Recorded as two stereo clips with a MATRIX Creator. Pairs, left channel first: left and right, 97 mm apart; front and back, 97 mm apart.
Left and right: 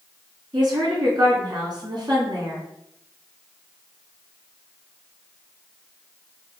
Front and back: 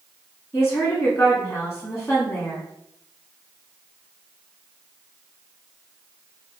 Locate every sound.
0.5 s a woman speaking: 60° right, 2.5 m